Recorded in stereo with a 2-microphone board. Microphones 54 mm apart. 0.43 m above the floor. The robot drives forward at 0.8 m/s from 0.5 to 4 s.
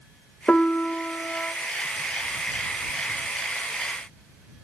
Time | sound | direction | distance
0.5 | a piano | 20° left (ahead or behind) | 1.0 m